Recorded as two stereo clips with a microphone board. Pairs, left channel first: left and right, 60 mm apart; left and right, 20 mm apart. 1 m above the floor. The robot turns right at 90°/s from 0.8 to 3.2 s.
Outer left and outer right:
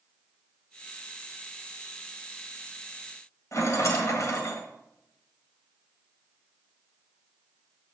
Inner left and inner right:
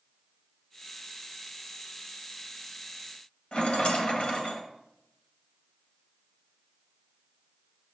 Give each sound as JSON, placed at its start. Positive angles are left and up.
{"t": 3.5, "sound": "a rattle", "side_deg": 60, "distance_m": 1.5}